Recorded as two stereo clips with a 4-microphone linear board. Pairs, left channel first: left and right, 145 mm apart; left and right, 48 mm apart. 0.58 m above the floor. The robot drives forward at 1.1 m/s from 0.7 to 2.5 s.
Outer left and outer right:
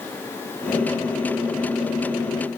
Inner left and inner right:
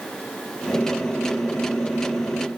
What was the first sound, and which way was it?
Only background noise.